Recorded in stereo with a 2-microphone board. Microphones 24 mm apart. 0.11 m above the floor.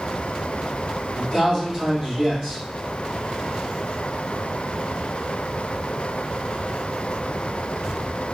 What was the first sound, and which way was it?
A man speaking, 25° right (ahead or behind).